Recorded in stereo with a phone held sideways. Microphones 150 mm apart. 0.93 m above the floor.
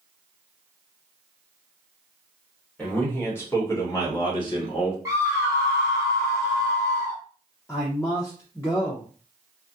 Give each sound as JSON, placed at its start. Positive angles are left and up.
{"t": 2.8, "sound": "a man speaking", "side_deg": 10, "distance_m": 1.7}
{"t": 5.0, "sound": "a scream", "side_deg": -20, "distance_m": 0.8}
{"t": 7.7, "sound": "a man speaking", "side_deg": 20, "distance_m": 0.6}